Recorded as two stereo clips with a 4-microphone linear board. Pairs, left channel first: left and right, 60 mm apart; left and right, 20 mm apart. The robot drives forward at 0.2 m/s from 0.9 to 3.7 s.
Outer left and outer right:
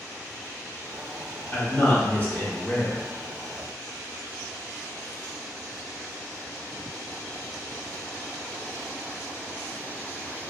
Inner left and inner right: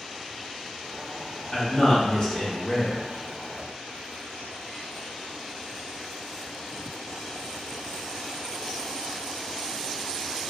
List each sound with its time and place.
1.5 s a man speaking: 30° left (ahead or behind), 0.9 m; by 3.0 s 25° left (ahead or behind), 1.0 m